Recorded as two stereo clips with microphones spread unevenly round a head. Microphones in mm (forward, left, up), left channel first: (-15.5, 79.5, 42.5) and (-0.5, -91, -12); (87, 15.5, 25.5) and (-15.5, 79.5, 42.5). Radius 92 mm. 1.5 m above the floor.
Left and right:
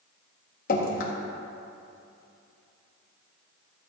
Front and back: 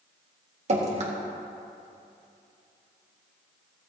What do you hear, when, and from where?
0.7 s dripping: 125° left, 1.8 m